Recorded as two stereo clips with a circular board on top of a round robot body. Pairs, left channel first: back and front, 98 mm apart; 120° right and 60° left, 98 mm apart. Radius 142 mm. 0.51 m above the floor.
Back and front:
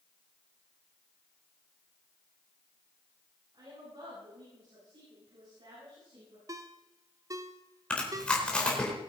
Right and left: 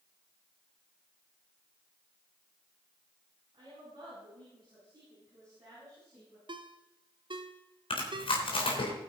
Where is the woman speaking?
35° left, 7.5 m; by 6.4 s 5° left, 7.5 m.